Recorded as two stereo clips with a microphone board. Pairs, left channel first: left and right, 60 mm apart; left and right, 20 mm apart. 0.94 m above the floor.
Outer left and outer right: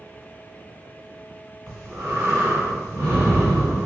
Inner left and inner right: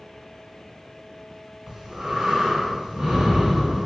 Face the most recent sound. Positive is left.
turn(degrees=-45)  # may be behind; listen again after turning